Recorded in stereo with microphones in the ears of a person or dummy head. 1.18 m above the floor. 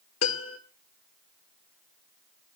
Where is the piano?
75° left (ahead or behind), 1.6 m.